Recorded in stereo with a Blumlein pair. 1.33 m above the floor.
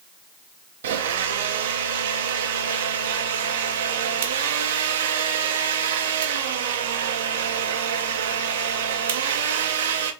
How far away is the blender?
About 0.7 m.